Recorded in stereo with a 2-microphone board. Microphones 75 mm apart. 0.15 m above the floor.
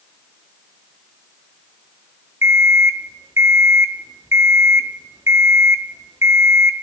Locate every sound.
2.4 s an alarm clock: 40° right (ahead or behind), 1.2 m